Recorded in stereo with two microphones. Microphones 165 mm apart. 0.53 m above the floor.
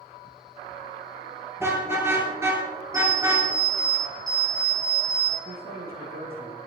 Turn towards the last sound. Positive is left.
turn(degrees=-65)  # may be behind; listen again after turning